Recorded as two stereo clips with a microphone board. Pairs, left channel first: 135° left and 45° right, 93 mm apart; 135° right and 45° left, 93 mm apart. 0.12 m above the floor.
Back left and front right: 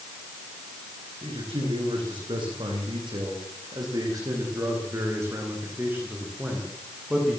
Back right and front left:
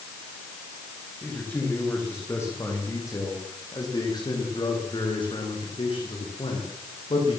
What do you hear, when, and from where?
1.2 s a man speaking: 65° right, 9 m; by 7.4 s 130° right, 8.5 m